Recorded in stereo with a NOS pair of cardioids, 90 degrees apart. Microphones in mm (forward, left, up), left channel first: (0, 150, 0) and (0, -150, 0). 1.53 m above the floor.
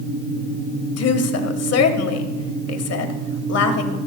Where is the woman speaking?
55° left, 1.5 m.